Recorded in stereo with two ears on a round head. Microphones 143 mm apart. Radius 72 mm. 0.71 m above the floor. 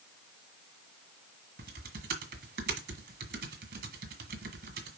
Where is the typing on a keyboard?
65° right (ahead or behind), 1.8 m.